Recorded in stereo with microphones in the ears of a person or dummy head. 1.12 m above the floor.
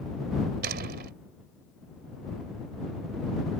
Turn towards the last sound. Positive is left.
turn(degrees=-55)  # may be behind; listen again after turning